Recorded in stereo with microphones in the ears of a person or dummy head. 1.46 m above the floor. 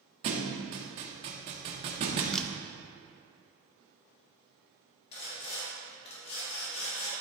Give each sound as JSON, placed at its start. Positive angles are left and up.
{"t": 0.2, "sound": "a thud", "side_deg": -40, "distance_m": 1.2}
{"t": 2.3, "sound": "a camera shutter", "side_deg": 0, "distance_m": 0.5}
{"t": 5.1, "sound": "sawing", "side_deg": 30, "distance_m": 3.0}